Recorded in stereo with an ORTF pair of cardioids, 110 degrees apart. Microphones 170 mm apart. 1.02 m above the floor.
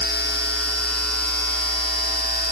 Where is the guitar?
No guitar in this recording.